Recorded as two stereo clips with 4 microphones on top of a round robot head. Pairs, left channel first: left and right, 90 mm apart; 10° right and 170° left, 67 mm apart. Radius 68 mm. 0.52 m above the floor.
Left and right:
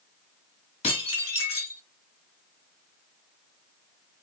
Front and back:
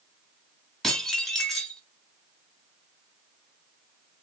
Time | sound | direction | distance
0.8 | dishes clattering | 80° left | 2.0 m